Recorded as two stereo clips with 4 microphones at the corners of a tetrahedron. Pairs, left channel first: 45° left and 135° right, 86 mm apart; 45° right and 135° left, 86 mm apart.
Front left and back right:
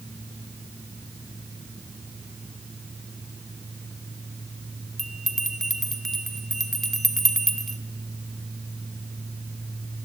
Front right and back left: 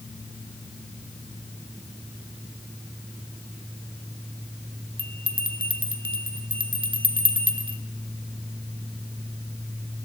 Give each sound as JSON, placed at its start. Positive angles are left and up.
{"t": 5.0, "sound": "a bell", "azimuth_deg": 130, "distance_m": 1.5}